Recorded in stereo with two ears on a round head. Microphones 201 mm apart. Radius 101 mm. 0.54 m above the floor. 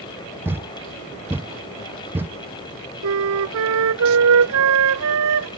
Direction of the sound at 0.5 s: 10° right (ahead or behind).